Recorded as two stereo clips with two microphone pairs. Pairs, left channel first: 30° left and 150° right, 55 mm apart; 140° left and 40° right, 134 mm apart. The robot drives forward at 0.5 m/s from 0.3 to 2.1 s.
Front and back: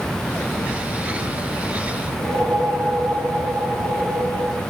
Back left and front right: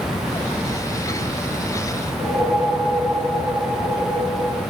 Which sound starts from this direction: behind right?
A whoosh, at 2.1 s.